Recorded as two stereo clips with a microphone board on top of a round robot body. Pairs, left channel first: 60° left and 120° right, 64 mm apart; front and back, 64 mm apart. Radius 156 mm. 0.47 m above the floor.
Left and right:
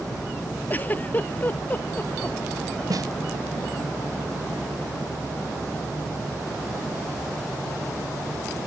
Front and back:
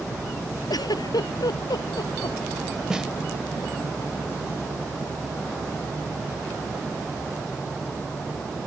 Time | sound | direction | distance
0.7 | a giggle | 5° right | ?
2.9 | a snare drum | 100° right | ?